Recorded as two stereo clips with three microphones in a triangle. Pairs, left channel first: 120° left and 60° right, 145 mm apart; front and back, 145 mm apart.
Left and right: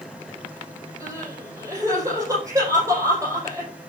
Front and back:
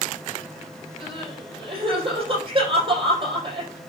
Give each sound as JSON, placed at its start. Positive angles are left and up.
{"t": 1.0, "sound": "crying", "azimuth_deg": -125, "distance_m": 5.5}